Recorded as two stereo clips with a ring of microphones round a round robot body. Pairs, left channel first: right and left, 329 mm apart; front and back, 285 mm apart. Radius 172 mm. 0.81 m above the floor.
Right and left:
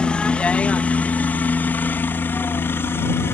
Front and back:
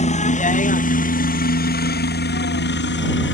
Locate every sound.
0.0 s a helicopter: 5° right; by 3.4 s 10° right